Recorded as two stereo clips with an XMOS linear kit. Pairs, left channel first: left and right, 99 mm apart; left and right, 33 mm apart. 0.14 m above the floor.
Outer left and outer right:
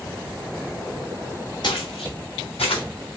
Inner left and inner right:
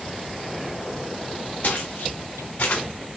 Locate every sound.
1.6 s footsteps: 55° left (ahead or behind), 1.3 m; by 2.8 s 65° left (ahead or behind), 1.3 m